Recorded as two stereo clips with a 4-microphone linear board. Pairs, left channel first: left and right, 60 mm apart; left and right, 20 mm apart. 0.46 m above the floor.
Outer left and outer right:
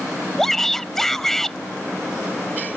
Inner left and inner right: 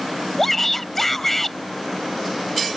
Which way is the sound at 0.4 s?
5° left (ahead or behind).